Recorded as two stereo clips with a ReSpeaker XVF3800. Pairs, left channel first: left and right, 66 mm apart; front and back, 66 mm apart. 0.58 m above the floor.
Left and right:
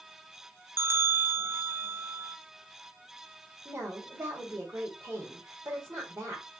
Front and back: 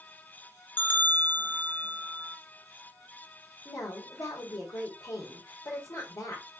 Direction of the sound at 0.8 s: 55° right.